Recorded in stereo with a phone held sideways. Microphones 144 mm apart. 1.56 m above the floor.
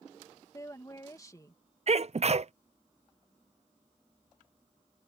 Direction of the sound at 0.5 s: 25° left (ahead or behind).